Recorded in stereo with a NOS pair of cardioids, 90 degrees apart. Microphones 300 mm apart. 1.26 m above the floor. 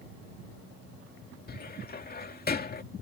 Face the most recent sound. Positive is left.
turn(degrees=30)